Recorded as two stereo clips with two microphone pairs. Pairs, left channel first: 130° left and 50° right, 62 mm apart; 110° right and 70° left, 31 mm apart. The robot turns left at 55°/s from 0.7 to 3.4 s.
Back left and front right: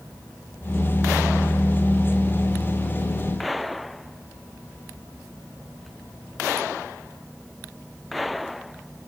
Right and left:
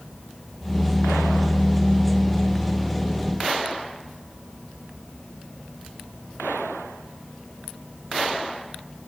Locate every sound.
Only background noise.